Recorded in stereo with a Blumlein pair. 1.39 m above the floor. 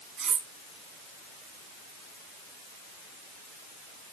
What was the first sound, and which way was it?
Cutlery clinking, 25° right.